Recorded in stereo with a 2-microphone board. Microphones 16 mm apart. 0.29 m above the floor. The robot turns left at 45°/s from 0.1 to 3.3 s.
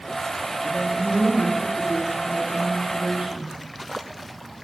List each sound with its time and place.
0.6 s a man speaking: 115° left, 6.5 m; by 3.5 s 5° right, 6.5 m